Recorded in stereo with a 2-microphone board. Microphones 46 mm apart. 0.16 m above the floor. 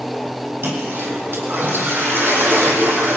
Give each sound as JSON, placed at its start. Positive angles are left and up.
{"t": 0.6, "sound": "a toilet flushing", "side_deg": -55, "distance_m": 4.5}